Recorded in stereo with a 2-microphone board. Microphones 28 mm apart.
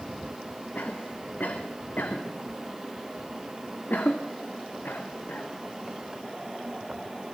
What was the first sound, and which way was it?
A cough, 75° left (ahead or behind).